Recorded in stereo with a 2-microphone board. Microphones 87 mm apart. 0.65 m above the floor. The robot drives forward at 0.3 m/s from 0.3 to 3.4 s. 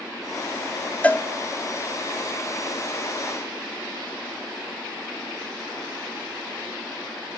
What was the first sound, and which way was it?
A cowbell, 15° left (ahead or behind).